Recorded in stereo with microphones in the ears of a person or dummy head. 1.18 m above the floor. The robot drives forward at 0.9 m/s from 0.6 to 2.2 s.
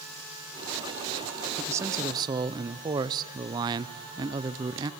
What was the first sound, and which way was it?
A man speaking, 15° right (ahead or behind).